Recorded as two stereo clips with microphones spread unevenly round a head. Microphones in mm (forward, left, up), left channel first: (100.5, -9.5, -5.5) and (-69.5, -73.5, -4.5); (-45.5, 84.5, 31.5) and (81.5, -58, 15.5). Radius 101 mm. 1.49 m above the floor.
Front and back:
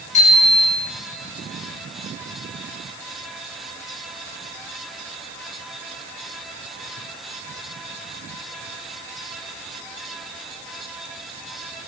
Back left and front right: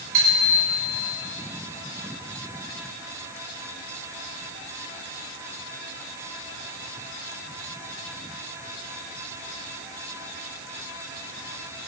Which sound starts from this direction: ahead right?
A bicycle bell, at 0.1 s.